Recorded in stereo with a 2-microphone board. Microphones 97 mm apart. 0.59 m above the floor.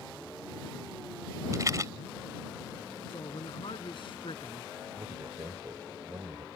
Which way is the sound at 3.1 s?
60° left (ahead or behind).